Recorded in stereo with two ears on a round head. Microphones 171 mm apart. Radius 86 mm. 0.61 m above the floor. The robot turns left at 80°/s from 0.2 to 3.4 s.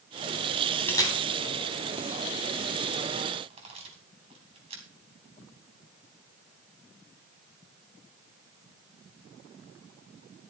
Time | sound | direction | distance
0.9 | a camera shutter | 10° left (ahead or behind) | 3.5 m